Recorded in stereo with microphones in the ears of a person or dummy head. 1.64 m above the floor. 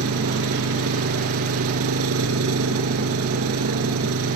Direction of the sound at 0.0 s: 85° right.